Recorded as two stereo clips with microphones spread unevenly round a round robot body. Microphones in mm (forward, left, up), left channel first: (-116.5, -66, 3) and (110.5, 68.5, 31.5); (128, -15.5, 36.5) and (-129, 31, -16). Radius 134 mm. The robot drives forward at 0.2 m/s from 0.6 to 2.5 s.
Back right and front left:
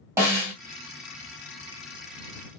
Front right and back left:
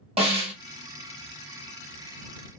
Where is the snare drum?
110° left, 1.5 m.